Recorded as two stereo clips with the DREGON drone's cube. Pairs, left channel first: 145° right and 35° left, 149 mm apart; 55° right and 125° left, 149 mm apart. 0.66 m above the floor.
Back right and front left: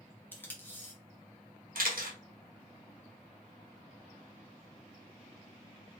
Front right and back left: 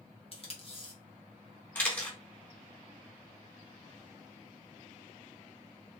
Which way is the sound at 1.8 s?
20° left.